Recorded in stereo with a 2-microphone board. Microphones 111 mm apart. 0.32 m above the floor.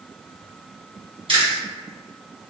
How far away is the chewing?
About 1.9 m.